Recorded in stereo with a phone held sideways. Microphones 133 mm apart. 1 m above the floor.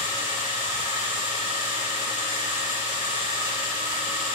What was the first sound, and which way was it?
A machine running, 85° right.